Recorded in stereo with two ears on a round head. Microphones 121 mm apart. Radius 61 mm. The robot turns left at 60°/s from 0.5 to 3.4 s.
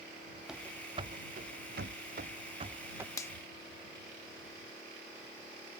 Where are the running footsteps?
5° right (ahead or behind); by 3.1 s 15° right (ahead or behind).